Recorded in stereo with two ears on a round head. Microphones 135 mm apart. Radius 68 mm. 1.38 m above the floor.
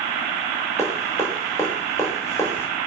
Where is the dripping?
20° left (ahead or behind), 6.5 m.